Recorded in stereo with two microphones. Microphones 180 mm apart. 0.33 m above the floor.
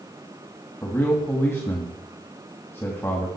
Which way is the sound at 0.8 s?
15° left (ahead or behind).